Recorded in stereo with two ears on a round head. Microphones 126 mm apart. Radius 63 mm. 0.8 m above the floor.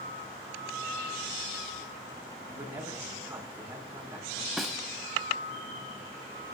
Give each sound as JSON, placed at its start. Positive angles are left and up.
{"t": 2.4, "sound": "a man speaking", "side_deg": -15, "distance_m": 6.0}
{"t": 4.6, "sound": "a snare drum", "side_deg": 0, "distance_m": 0.9}